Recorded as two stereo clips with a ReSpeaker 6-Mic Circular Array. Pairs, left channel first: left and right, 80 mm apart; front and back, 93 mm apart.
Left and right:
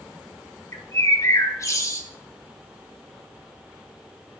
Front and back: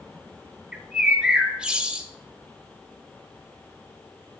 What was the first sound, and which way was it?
A bird, 105° left.